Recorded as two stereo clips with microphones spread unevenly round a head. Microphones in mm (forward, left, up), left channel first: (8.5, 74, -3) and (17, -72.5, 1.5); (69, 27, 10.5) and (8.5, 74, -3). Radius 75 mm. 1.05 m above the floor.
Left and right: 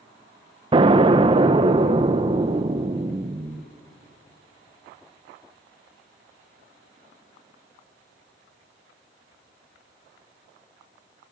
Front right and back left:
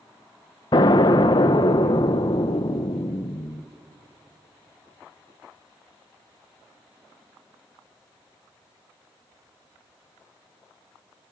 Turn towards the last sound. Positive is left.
turn(degrees=-40)